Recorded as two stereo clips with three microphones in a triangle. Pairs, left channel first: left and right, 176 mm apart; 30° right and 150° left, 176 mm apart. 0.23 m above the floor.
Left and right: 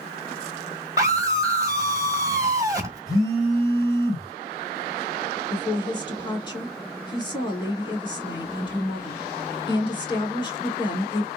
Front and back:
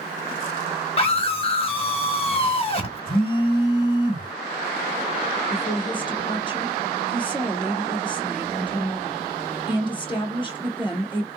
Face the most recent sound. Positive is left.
turn(degrees=30)